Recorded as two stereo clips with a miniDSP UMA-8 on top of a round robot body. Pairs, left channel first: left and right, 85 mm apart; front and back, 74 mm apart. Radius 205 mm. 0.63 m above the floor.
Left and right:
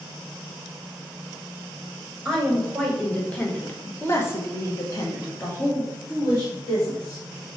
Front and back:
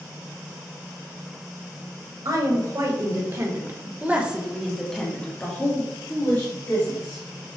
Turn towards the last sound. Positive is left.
turn(degrees=35)